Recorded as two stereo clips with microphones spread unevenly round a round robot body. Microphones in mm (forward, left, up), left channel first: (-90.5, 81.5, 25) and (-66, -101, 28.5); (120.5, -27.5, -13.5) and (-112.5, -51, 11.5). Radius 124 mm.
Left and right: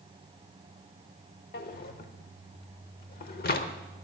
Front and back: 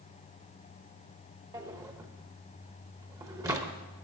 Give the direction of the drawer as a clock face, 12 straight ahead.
8 o'clock.